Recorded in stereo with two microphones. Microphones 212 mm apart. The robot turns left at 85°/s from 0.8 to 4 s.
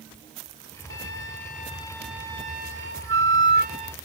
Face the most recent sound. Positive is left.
turn(degrees=-165)